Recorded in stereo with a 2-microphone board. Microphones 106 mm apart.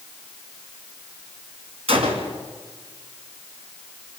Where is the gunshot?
65° right (ahead or behind), 3.5 m.